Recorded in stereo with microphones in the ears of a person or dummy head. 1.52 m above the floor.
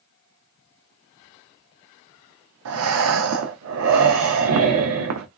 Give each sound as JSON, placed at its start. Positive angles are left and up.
{"t": 2.6, "sound": "breathing", "side_deg": -75, "distance_m": 0.6}